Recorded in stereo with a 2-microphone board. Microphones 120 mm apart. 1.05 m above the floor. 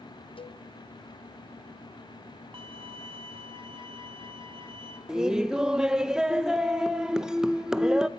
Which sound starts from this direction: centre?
Laughter, at 5.1 s.